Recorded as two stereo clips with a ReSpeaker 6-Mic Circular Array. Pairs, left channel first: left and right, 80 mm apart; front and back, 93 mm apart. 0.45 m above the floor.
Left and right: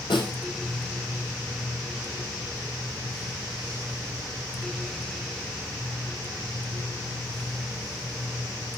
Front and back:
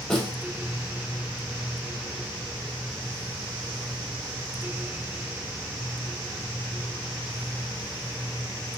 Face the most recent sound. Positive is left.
turn(degrees=85)